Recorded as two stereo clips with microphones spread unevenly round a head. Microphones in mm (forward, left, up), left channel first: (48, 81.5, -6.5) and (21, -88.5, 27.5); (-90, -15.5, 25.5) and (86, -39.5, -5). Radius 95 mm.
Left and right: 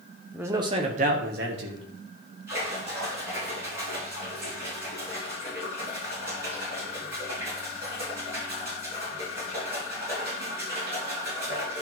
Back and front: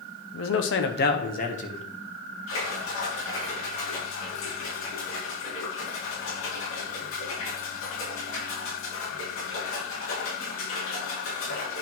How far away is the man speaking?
About 1.1 m.